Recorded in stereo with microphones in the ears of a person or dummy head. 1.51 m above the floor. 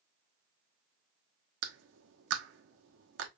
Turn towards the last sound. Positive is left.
turn(degrees=-70)  # may be behind; listen again after turning